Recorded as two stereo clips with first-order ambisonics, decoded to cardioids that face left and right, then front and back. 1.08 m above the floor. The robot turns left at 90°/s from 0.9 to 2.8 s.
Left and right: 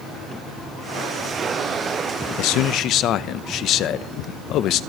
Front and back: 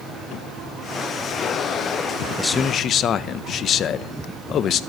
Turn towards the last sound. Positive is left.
turn(degrees=50)